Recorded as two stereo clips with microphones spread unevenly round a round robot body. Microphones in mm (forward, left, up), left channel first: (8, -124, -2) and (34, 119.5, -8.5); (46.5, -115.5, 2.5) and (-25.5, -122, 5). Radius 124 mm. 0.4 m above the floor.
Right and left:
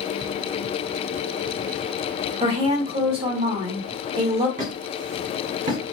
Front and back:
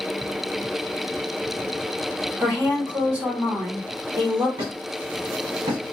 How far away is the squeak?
About 1.2 m.